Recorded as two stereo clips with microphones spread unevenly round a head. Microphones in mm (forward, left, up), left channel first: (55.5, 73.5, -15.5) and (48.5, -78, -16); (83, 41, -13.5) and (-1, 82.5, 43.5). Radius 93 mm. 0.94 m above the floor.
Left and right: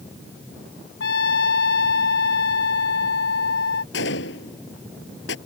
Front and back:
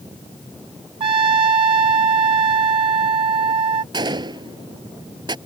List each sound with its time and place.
1.0 s a trumpet: 125° left
3.9 s a gunshot: 115° left